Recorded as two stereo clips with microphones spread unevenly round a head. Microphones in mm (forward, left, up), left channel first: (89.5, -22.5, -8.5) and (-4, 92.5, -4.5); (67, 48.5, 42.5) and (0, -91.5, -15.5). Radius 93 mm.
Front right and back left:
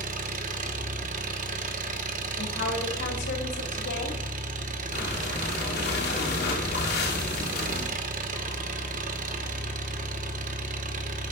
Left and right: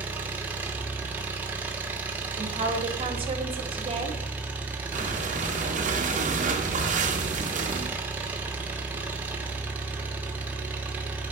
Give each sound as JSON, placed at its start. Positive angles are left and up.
{"t": 0.0, "sound": "an engine running", "azimuth_deg": 150, "distance_m": 1.1}
{"t": 2.4, "sound": "a woman speaking", "azimuth_deg": -60, "distance_m": 3.5}
{"t": 4.9, "sound": "breathing", "azimuth_deg": -70, "distance_m": 2.5}